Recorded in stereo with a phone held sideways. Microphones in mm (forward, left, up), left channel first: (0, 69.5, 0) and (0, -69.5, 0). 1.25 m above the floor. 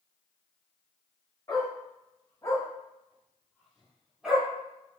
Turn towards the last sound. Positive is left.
turn(degrees=-10)  # may be behind; listen again after turning